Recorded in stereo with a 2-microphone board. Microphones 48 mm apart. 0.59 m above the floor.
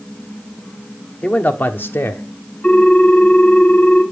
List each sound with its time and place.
1.2 s a man speaking: 30° left (ahead or behind), 1.0 m; by 2.2 s 60° left (ahead or behind), 1.2 m
2.6 s a ringtone: 25° left (ahead or behind), 3.5 m